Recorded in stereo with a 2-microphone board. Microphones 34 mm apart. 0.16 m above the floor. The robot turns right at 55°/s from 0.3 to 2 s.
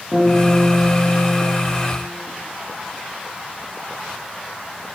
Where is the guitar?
165° left, 4.5 m; by 1.6 s 125° right, 4.5 m.